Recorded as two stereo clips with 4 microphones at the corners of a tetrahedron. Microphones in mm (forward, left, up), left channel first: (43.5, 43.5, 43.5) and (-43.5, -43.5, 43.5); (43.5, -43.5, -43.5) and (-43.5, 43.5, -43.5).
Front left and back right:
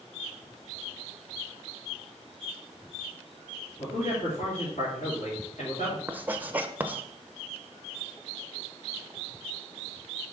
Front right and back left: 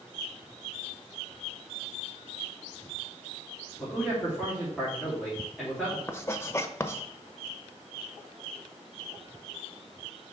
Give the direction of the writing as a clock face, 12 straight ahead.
3 o'clock.